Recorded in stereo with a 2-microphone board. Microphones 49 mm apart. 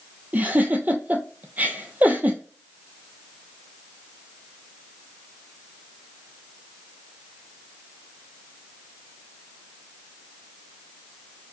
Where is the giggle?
35° right (ahead or behind), 0.6 m.